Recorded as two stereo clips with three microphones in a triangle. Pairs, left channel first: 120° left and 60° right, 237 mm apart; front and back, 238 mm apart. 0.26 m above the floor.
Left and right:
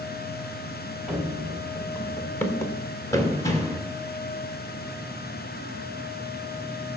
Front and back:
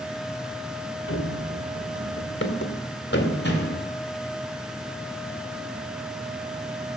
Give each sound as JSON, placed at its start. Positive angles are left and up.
{"t": 1.1, "sound": "running footsteps", "azimuth_deg": 30, "distance_m": 1.8}